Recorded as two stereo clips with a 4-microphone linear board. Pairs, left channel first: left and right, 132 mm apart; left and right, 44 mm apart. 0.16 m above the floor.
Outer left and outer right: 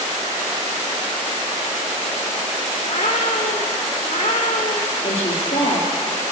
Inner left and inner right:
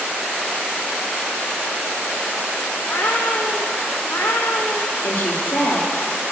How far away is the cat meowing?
About 3 m.